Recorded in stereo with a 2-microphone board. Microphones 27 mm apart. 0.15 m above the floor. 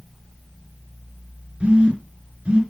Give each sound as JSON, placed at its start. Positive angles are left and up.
{"t": 1.6, "sound": "a phone buzzing", "side_deg": -40, "distance_m": 2.5}